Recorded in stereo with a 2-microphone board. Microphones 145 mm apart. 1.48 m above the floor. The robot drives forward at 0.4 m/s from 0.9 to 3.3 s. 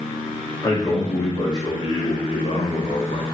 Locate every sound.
0.6 s a man speaking: 25° left (ahead or behind), 1.2 m; by 3.2 s 60° left (ahead or behind), 0.6 m